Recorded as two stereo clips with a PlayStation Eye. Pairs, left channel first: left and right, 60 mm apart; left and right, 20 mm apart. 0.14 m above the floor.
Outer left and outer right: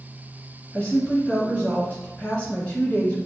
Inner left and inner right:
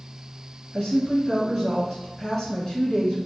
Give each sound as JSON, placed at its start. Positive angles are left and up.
{"t": 0.7, "sound": "a woman speaking", "side_deg": 25, "distance_m": 1.4}